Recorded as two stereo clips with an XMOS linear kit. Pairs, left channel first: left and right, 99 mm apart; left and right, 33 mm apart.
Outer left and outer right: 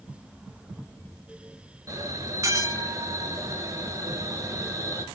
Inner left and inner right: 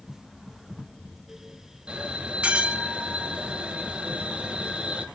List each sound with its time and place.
1.9 s a bell: 35° right (ahead or behind), 0.9 m